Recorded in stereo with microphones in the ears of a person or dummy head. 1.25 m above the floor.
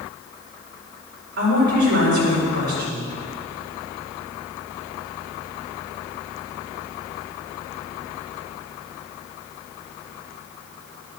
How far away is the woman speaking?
About 4.5 m.